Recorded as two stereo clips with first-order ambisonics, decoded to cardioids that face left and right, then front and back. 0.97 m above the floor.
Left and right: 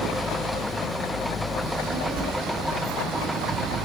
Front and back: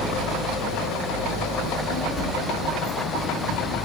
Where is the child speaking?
65° right, 2 m; by 3.8 s 70° right, 0.9 m.